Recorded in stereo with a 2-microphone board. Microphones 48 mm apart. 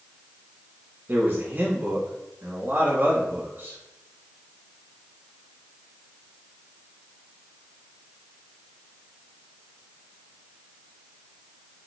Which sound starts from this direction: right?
A man speaking, at 1.1 s.